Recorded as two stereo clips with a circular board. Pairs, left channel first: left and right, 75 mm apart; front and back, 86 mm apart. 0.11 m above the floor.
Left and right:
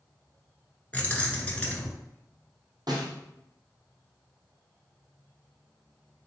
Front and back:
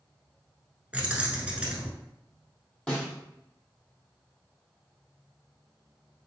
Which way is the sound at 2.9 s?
75° right.